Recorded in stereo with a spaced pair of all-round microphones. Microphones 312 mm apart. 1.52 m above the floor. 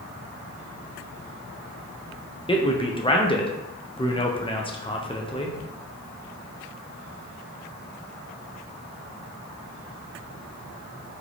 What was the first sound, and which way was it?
A man speaking, 15° left (ahead or behind).